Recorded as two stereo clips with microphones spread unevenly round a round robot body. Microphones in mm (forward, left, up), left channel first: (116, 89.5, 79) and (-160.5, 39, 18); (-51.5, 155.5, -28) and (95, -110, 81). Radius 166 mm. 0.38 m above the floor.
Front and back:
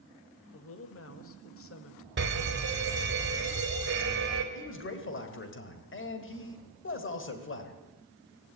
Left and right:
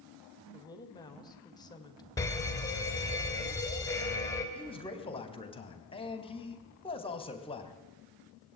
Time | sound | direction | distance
0.5 | a woman speaking | 55° left | 2.5 m
2.2 | a fire alarm | straight behind | 3 m
4.5 | a man speaking | 60° left | 3 m